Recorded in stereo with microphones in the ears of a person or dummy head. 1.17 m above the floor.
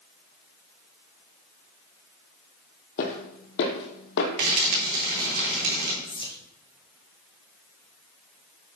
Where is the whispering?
25° left (ahead or behind), 1.4 m.